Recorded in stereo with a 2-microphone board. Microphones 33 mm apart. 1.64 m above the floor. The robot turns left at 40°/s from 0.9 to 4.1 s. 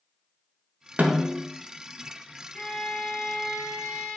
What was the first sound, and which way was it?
A snare drum, 55° right (ahead or behind).